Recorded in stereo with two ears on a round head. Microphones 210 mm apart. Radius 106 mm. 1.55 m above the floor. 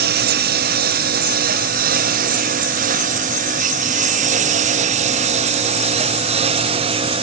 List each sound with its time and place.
0.0 s a lawn mower: 40° right (ahead or behind); by 7.2 s 20° right (ahead or behind)